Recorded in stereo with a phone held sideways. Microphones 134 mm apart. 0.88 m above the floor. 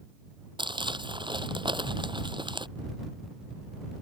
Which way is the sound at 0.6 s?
35° right (ahead or behind).